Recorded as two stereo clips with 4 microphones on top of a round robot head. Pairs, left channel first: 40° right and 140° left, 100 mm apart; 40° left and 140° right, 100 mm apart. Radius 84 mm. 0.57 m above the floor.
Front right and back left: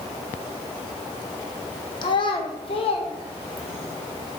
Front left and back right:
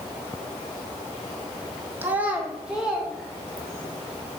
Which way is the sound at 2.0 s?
70° right.